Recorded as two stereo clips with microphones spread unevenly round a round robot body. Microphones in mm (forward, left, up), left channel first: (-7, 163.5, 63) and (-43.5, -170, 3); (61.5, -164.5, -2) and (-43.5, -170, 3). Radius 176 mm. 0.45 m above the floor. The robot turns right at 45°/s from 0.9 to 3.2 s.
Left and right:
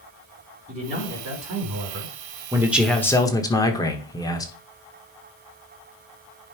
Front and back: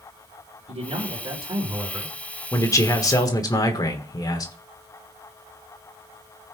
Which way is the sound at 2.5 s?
35° right.